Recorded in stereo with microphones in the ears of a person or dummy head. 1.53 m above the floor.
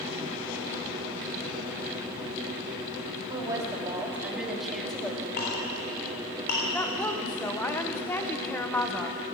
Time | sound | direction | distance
3.3 | a woman speaking | 20° right (ahead or behind) | 3 m
5.4 | a clink | 40° left (ahead or behind) | 3.5 m
6.7 | a woman speaking | 10° left (ahead or behind) | 1.0 m